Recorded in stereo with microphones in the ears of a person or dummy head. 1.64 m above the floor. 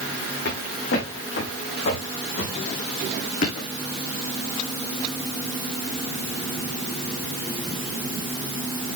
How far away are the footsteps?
About 6.5 m.